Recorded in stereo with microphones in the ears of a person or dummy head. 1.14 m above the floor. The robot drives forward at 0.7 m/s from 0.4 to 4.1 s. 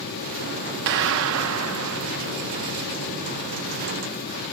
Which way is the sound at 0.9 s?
60° right (ahead or behind).